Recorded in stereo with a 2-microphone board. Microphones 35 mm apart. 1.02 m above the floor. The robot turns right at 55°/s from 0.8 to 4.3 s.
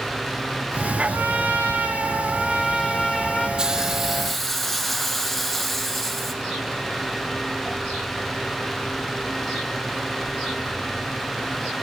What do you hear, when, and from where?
1.1 s a trumpet: 110° right, 1.2 m; by 3.5 s 20° left, 1.2 m
3.6 s a hiss: 25° right, 0.6 m; by 6.3 s 10° left, 0.6 m